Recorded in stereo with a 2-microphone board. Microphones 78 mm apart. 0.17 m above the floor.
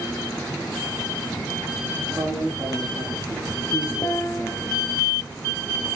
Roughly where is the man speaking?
Right.